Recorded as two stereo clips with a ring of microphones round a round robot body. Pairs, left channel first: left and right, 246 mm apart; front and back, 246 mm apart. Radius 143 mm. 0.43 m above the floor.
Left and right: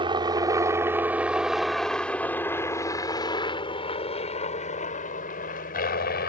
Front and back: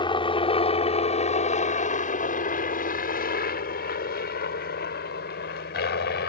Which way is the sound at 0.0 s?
45° right.